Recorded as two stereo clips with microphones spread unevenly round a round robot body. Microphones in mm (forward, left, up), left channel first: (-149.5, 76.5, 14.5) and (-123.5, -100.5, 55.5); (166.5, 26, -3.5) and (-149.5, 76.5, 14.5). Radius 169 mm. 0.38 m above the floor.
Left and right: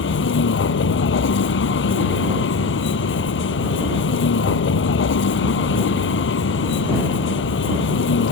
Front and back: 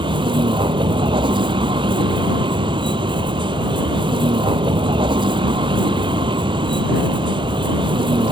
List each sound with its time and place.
0.0 s a vehicle: 95° left